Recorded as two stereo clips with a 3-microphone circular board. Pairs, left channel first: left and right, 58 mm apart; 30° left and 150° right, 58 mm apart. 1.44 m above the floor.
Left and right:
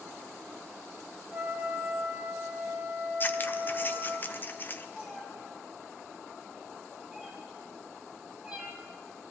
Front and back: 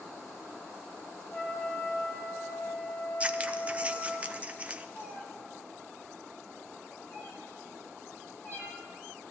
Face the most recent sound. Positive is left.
turn(degrees=-20)